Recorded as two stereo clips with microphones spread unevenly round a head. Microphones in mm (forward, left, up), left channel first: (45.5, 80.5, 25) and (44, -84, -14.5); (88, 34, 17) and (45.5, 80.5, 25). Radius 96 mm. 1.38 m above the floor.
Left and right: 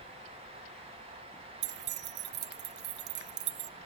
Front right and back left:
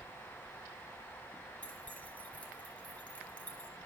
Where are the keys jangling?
135° right, 0.6 m.